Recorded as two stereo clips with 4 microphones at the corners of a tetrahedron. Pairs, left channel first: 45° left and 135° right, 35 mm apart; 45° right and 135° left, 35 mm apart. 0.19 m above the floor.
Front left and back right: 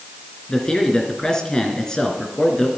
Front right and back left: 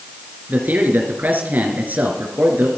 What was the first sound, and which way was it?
A man speaking, 115° left.